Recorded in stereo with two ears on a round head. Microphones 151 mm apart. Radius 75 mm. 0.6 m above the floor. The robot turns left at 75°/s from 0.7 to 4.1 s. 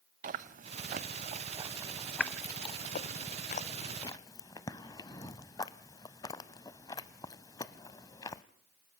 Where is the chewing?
45° right (ahead or behind), 0.6 m; by 8.4 s 20° left (ahead or behind), 0.6 m.